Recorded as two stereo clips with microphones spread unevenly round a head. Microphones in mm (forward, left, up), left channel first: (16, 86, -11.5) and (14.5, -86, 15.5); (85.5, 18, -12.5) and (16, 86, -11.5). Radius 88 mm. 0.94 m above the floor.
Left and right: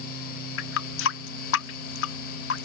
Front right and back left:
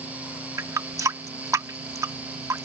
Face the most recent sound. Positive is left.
turn(degrees=75)